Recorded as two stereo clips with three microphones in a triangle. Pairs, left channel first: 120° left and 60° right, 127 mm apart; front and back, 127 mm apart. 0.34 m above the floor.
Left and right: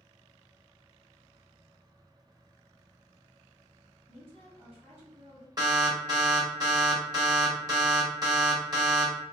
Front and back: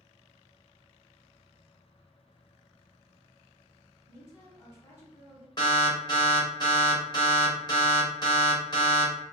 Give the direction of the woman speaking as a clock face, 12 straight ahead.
2 o'clock.